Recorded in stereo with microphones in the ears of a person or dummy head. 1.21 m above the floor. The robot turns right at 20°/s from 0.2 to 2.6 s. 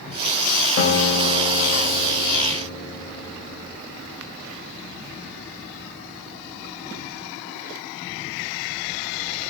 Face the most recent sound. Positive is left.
turn(degrees=160)